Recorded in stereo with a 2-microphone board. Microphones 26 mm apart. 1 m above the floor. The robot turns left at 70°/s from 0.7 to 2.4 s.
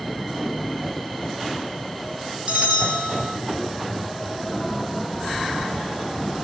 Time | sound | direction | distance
2.5 | a bell | 45° right (ahead or behind) | 0.7 m